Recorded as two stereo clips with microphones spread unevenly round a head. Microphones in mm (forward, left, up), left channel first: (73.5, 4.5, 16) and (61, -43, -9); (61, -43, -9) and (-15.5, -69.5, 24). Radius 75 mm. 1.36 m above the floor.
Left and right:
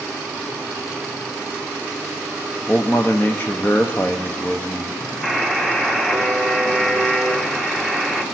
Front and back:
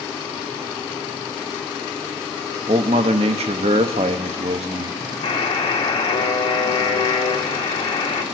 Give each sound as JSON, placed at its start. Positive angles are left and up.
{"t": 2.7, "sound": "a man speaking", "azimuth_deg": 160, "distance_m": 0.7}
{"t": 5.2, "sound": "a buzzer", "azimuth_deg": 5, "distance_m": 1.6}